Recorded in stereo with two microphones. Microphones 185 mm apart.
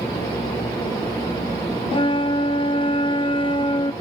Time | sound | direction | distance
1.9 | a flute | 30° left (ahead or behind) | 1.0 m